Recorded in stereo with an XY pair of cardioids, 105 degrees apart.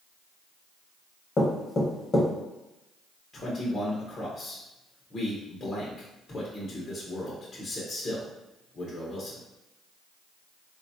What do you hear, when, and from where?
1.4 s knocking: 40° left, 1.0 m
3.3 s a man speaking: 35° left, 0.8 m